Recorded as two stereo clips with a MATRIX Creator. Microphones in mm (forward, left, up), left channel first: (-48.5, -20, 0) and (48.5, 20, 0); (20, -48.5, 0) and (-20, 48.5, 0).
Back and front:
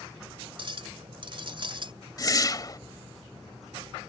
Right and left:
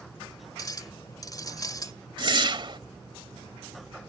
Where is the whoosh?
150° left.